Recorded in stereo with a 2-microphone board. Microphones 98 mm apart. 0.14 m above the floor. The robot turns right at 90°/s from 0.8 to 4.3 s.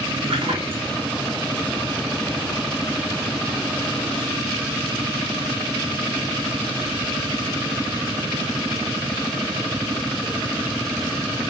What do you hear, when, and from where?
0.2 s a splash: 70° right (ahead or behind), 4.5 m; by 1.0 s 90° right, 4.5 m